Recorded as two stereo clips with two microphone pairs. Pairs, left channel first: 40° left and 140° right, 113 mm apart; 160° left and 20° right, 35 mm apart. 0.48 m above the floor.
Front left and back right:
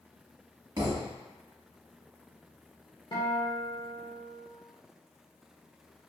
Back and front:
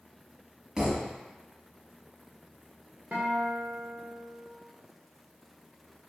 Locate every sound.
0.8 s a thud: 90° right, 1.0 m
3.1 s a guitar: 10° left, 0.8 m